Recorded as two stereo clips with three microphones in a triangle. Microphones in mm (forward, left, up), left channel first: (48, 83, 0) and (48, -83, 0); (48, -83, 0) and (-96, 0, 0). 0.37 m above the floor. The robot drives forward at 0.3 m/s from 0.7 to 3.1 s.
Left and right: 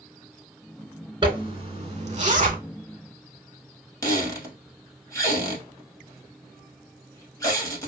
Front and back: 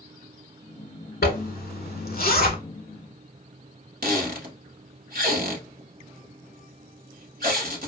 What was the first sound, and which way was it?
A zipper, 35° right.